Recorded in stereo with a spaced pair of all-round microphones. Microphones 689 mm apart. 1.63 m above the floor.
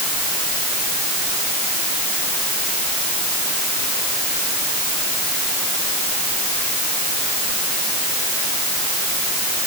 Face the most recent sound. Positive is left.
No sound to turn to.